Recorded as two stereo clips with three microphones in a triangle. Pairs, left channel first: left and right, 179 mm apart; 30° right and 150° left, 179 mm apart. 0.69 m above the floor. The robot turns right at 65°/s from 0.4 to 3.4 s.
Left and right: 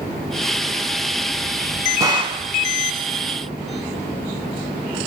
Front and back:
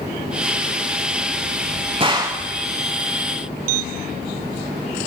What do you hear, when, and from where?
2.0 s a gunshot: 155° right, 0.9 m; by 2.4 s 130° right, 0.9 m